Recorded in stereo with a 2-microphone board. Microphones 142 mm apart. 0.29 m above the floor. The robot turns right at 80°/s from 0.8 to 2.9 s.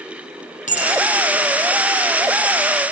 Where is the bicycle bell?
80° left, 7 m.